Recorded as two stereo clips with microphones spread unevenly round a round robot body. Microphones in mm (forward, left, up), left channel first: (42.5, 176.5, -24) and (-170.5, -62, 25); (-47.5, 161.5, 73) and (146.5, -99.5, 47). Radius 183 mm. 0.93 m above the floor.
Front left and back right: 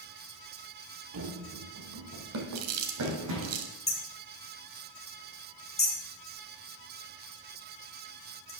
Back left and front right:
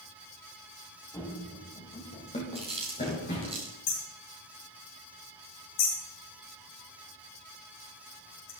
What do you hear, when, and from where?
1.1 s running footsteps: 155° right, 1.7 m; by 3.5 s 165° right, 4 m
2.5 s chewing: 130° right, 1.7 m
3.9 s hammering: 120° left, 4.5 m